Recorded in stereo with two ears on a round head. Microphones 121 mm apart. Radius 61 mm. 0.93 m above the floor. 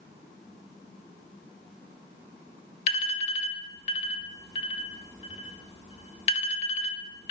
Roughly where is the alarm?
Left.